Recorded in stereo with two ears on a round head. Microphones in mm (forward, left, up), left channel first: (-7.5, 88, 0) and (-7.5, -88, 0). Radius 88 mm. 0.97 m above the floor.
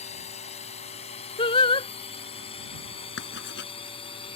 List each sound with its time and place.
0.0 s a drone: 35° left (ahead or behind); by 4.4 s 25° left (ahead or behind)
1.4 s singing: 25° left (ahead or behind)
3.2 s writing: 60° left (ahead or behind)